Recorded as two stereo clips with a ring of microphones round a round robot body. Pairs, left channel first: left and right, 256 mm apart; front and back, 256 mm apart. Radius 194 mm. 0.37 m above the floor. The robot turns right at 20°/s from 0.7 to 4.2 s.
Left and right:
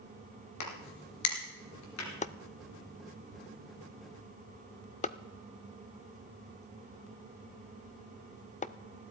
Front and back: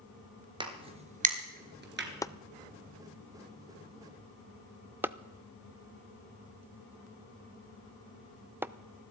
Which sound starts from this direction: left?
A crack, at 0.6 s.